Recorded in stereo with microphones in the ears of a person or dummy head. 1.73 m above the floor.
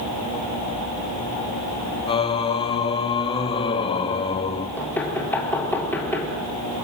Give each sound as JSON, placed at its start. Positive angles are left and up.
{"t": 2.1, "sound": "singing", "side_deg": 30, "distance_m": 1.2}
{"t": 4.8, "sound": "knocking", "side_deg": 10, "distance_m": 4.0}